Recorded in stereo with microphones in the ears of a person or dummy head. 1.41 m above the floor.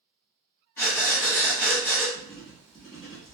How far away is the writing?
About 1.4 m.